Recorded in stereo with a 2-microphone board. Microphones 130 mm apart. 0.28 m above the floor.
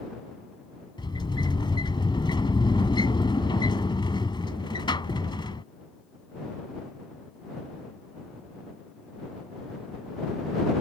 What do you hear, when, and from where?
1.0 s a sliding door: 35° left (ahead or behind)